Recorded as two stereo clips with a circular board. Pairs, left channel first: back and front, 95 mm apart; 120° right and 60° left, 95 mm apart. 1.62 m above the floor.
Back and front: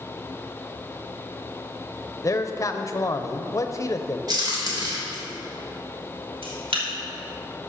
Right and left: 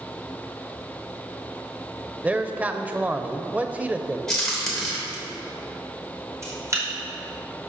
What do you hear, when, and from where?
2.2 s a man speaking: 130° left, 0.7 m
4.3 s a crack: 35° right, 3.5 m
6.4 s a camera shutter: 5° left, 3 m